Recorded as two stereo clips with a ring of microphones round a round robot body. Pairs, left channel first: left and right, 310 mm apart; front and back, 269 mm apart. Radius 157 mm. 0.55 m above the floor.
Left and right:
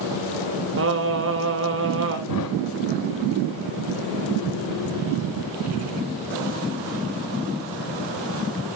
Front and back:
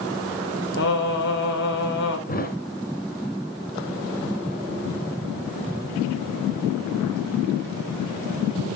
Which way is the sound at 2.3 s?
60° left.